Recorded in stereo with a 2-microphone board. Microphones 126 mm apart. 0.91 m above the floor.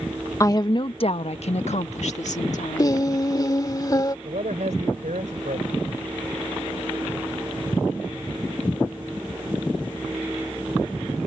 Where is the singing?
30° left (ahead or behind).